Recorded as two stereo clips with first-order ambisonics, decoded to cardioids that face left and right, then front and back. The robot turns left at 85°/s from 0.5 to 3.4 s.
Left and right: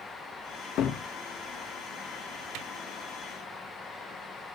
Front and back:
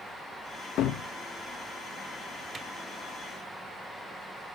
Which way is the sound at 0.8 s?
50° left.